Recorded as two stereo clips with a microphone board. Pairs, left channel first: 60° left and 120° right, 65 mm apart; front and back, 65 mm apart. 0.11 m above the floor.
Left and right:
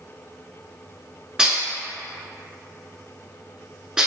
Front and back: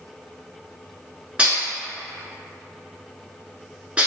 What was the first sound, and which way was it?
Dishes clattering, 170° right.